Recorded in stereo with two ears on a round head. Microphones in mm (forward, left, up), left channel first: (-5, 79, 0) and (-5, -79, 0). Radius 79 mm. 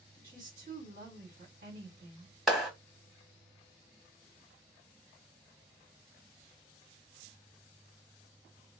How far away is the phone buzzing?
I don't hear a phone buzzing.